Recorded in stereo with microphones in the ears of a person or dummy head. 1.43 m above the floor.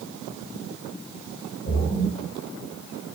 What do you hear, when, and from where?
1.7 s a splash: 55° left (ahead or behind), 2.5 m